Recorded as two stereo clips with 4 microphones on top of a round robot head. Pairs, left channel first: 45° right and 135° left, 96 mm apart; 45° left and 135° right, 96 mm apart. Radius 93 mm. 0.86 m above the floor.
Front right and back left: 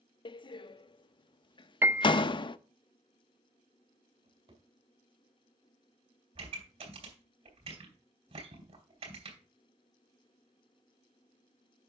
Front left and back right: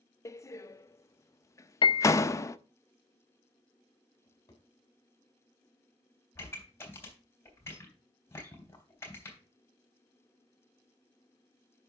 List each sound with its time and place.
0.2 s a door slam: 15° right, 0.6 m
1.8 s a piano: 70° left, 0.7 m
4.2 s a drawer: 100° left, 2.5 m
6.3 s a pop: 115° left, 3.5 m